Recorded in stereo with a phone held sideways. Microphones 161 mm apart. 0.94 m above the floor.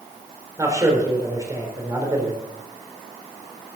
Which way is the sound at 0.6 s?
20° right (ahead or behind).